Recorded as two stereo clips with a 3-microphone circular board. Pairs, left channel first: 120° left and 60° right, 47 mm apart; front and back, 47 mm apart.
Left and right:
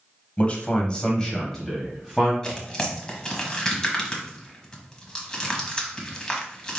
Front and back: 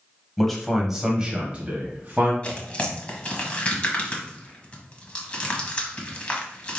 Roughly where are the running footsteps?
I don't hear running footsteps.